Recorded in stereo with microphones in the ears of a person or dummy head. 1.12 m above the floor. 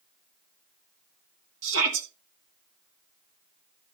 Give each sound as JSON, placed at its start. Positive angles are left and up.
{"t": 1.6, "sound": "a shout", "side_deg": -75, "distance_m": 2.5}